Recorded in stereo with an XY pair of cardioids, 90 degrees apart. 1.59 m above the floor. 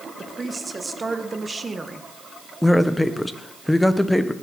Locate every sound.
0.2 s a woman speaking: 30° right, 1.6 m
2.6 s a man speaking: 5° left, 1.2 m